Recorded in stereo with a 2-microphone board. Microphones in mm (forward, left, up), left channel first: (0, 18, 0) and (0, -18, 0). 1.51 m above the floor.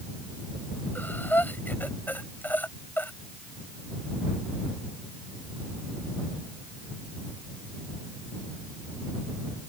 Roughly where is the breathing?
Left.